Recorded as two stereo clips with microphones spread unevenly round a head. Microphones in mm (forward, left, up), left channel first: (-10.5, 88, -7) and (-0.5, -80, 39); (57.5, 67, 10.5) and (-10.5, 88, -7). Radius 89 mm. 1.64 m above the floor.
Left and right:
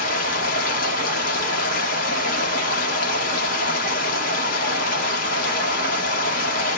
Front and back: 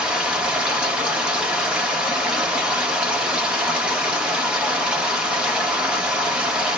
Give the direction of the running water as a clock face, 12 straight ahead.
10 o'clock.